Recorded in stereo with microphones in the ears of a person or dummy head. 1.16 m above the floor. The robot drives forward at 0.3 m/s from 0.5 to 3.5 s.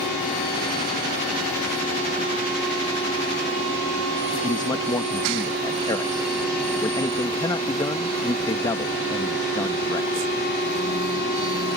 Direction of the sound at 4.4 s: 20° left (ahead or behind).